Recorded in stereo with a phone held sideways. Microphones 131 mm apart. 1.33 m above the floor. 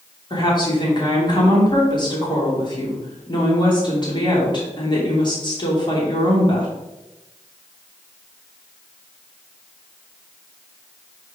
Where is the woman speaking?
35° left (ahead or behind), 3 m.